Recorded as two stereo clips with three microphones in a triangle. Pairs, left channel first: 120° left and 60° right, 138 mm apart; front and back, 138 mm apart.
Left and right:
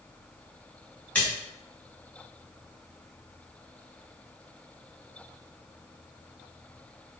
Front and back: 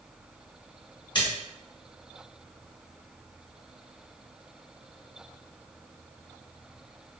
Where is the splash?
45° left, 2.5 m.